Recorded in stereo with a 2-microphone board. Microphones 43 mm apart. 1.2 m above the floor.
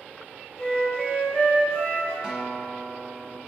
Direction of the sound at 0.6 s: 25° left (ahead or behind).